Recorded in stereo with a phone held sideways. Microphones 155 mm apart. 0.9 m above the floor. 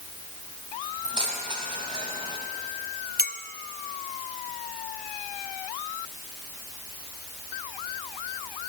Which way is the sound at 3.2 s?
75° left (ahead or behind).